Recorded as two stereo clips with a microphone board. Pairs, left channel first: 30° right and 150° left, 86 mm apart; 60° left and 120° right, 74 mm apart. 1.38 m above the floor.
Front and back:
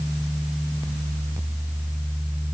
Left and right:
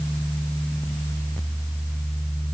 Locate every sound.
Only background noise.